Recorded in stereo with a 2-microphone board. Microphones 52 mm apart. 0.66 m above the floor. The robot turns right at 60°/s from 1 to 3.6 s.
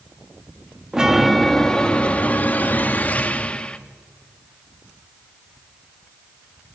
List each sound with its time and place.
0.9 s a chime: 15° right, 1.1 m; by 3.8 s 140° left, 1.1 m